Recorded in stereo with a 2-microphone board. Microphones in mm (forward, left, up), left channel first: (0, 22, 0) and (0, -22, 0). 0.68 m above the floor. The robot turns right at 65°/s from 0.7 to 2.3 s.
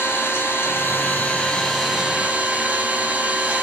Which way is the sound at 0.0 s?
105° left.